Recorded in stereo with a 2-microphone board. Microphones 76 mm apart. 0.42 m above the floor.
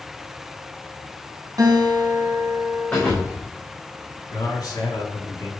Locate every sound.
1.6 s a guitar: 55° right (ahead or behind), 3.5 m
2.9 s a thud: 25° left (ahead or behind), 4.5 m
4.3 s a man speaking: 60° left (ahead or behind), 4.5 m